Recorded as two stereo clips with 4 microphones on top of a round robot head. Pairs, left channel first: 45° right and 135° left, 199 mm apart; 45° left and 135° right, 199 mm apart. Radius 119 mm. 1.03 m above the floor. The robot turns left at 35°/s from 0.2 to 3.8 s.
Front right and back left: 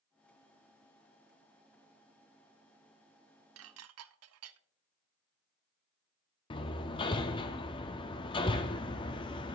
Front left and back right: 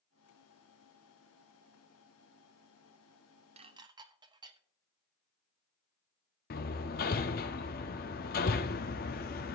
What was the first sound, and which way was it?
Dishes clattering, 160° left.